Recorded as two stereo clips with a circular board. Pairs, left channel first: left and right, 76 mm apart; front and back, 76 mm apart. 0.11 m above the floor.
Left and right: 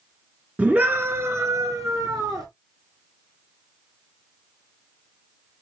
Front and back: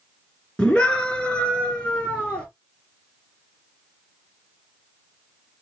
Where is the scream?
55° right, 1.1 m; by 2.5 s 70° right, 1.9 m.